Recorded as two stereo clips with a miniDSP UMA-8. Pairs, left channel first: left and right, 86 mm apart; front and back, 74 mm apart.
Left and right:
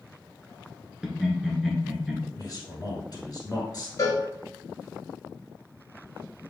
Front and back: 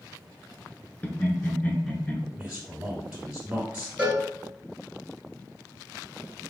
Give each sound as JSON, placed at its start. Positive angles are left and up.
{"t": 1.0, "sound": "laughter", "azimuth_deg": -15, "distance_m": 1.1}
{"t": 2.4, "sound": "a man speaking", "azimuth_deg": 100, "distance_m": 1.9}
{"t": 4.0, "sound": "a cowbell", "azimuth_deg": 115, "distance_m": 1.2}